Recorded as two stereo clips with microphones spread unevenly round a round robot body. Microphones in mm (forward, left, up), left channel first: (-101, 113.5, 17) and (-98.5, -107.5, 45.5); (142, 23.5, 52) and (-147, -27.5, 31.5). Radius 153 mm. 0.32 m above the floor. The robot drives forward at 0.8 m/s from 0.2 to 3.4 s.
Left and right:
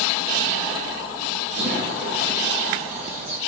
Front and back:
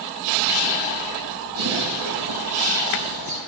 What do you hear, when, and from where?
1.6 s a bird: 125° right, 5 m; by 3.4 s 140° right, 6 m